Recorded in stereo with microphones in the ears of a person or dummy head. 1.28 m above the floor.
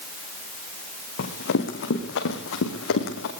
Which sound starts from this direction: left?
Running footsteps, at 1.2 s.